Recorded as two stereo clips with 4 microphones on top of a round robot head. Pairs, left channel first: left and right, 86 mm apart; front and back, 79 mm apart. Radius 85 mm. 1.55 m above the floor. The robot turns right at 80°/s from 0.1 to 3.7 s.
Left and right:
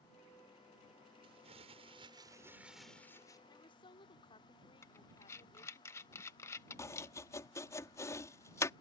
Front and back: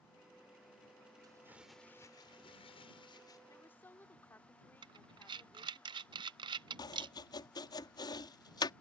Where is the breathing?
160° left.